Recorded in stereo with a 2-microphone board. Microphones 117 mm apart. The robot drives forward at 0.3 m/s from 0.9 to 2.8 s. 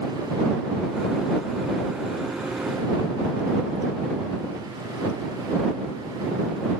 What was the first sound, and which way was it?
Only background noise.